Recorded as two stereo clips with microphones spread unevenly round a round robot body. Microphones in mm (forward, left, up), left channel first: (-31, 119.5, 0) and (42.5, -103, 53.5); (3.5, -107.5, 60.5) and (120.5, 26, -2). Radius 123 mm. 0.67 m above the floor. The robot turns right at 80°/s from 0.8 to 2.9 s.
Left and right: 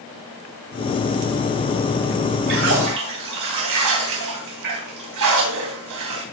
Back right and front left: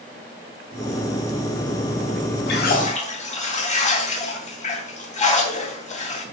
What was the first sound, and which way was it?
A splash, 115° right.